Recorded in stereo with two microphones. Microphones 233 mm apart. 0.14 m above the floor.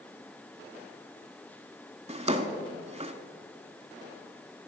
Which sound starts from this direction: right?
A drawer, at 2.1 s.